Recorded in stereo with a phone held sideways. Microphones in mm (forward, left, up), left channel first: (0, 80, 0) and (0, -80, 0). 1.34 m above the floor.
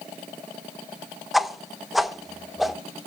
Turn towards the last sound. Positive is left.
turn(degrees=0)  # may be behind; listen again after turning